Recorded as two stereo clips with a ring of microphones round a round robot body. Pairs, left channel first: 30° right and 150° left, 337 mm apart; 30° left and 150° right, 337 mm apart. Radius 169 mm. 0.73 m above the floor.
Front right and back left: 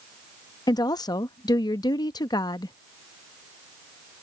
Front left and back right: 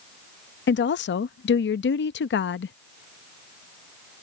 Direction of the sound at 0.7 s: 40° left.